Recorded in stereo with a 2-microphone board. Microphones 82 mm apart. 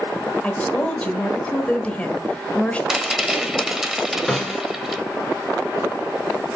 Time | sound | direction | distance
0.4 | a woman speaking | 15° left (ahead or behind) | 1.3 m
2.9 | a rattle | 5° right (ahead or behind) | 1.1 m
4.3 | a snare drum | centre (ahead or behind) | 3 m